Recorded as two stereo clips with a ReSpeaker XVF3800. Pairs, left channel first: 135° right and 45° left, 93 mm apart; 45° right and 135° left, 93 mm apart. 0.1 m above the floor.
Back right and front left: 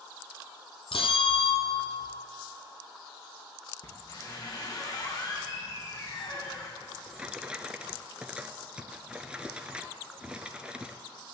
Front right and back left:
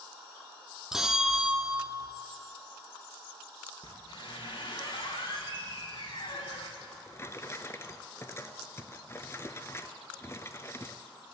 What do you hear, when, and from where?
0.9 s a bell: 140° right, 0.9 m
3.8 s a squeak: 85° right, 3 m
6.8 s a drawer: 25° right, 0.6 m